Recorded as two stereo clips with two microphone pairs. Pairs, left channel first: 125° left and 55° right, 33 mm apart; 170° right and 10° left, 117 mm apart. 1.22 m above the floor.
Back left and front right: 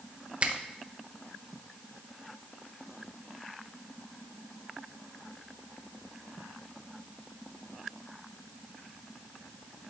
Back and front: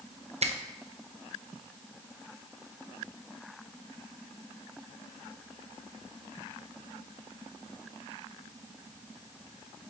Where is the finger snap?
Straight ahead, 0.7 m.